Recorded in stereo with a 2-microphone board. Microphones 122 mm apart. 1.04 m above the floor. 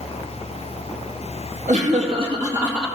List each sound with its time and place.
1.7 s laughter: 75° right (ahead or behind), 1.6 m; by 2.9 s 5° right (ahead or behind), 1.7 m